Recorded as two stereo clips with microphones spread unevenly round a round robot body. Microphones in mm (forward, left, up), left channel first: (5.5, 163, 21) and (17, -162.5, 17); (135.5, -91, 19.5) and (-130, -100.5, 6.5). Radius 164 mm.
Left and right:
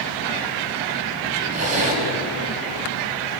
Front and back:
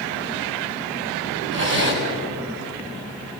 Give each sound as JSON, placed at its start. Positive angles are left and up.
{"t": 1.5, "sound": "a zipper", "azimuth_deg": -135, "distance_m": 5.5}